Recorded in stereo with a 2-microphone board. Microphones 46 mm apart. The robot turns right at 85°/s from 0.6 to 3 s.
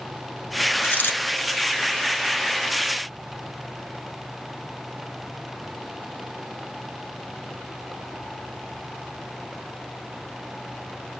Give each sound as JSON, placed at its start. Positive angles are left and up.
{"t": 0.8, "sound": "a dropped coin", "azimuth_deg": 55, "distance_m": 1.0}